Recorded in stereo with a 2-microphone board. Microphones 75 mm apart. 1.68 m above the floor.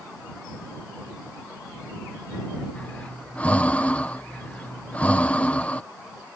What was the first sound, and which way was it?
Breathing, 20° left (ahead or behind).